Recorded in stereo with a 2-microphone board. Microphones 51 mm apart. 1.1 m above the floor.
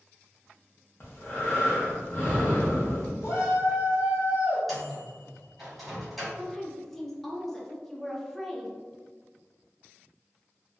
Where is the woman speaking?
5° left (ahead or behind), 0.5 m.